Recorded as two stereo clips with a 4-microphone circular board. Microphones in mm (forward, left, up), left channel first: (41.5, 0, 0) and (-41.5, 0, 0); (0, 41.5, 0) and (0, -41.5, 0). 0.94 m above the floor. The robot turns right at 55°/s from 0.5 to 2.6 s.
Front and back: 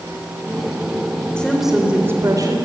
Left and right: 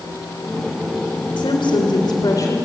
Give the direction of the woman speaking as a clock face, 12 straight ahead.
9 o'clock.